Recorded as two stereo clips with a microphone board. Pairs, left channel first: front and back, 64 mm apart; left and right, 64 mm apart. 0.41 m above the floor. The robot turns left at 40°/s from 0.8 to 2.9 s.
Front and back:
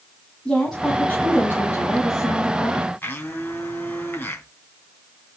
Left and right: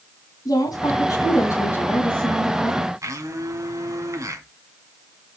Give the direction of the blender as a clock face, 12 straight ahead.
2 o'clock.